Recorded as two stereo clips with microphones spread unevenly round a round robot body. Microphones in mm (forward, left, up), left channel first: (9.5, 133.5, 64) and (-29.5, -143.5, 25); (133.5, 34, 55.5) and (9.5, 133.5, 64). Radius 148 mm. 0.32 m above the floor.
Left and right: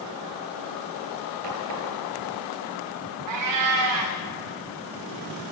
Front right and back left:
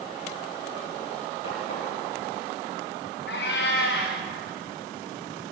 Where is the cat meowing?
75° right, 4 m.